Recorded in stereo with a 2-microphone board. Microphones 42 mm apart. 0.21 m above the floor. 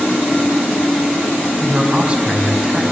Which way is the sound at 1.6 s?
30° right (ahead or behind).